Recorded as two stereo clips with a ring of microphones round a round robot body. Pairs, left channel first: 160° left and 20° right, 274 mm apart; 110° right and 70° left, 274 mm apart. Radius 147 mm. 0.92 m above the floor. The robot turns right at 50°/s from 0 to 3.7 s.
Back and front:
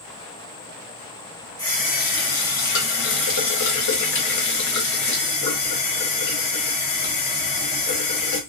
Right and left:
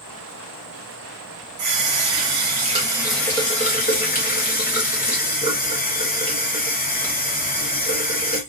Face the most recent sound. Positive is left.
turn(degrees=-175)